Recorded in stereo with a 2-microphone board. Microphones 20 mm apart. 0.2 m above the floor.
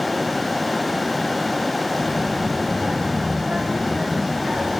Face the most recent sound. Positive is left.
turn(degrees=-80)